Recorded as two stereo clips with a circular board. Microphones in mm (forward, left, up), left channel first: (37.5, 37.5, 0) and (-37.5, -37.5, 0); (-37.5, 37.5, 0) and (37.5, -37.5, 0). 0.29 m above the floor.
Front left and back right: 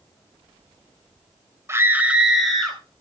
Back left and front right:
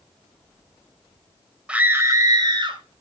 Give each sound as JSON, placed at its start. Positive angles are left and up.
{"t": 1.7, "sound": "a scream", "azimuth_deg": -115, "distance_m": 1.0}